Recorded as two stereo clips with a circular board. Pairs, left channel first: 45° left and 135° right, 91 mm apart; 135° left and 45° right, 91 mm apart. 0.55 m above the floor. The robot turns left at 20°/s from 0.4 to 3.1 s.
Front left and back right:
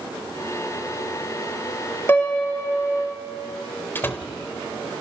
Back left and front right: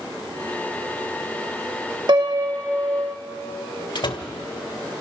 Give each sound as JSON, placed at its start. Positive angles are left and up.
{"t": 2.1, "sound": "a piano", "azimuth_deg": -20, "distance_m": 1.7}
{"t": 4.0, "sound": "a door slam", "azimuth_deg": 110, "distance_m": 1.5}